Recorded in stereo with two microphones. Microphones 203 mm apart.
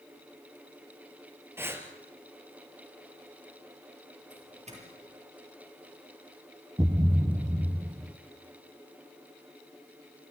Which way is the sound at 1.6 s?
10° right (ahead or behind).